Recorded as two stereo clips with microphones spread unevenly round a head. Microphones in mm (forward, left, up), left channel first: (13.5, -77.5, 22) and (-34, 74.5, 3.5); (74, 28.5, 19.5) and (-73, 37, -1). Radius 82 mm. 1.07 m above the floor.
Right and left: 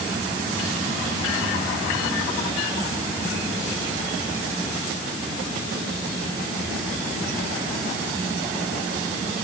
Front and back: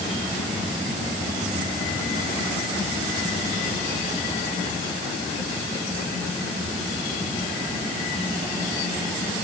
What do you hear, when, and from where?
Only background noise.